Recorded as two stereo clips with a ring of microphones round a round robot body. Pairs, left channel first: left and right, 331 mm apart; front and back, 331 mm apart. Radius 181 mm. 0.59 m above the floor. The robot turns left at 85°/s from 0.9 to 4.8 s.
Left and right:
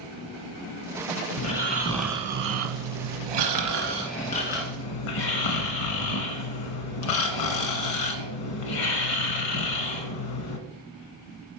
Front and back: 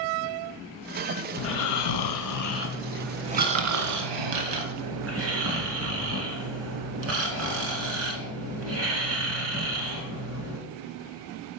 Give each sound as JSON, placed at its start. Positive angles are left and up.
{"t": 1.4, "sound": "snoring", "azimuth_deg": 55, "distance_m": 1.3}